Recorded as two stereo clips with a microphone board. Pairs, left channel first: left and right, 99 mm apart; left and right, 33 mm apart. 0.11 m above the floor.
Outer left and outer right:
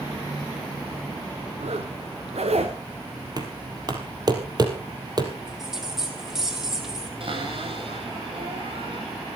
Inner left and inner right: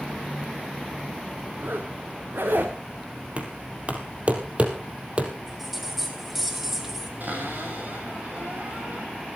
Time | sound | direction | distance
1.6 | a zipper | 85° right | 3.5 m
3.4 | knocking | 40° right (ahead or behind) | 3 m
5.5 | a bell | 5° right (ahead or behind) | 3.5 m
7.2 | a cupboard door | 60° right (ahead or behind) | 9.5 m